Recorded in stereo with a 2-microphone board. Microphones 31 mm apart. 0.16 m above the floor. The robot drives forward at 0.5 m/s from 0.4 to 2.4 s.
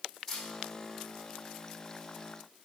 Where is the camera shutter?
15° left (ahead or behind), 4 m.